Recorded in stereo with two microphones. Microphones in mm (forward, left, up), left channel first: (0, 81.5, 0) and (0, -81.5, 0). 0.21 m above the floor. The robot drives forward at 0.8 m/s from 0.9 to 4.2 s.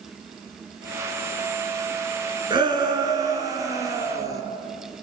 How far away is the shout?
About 3 m.